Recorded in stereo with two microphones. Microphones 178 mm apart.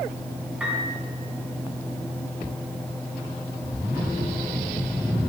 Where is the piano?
5° right (ahead or behind), 4 m.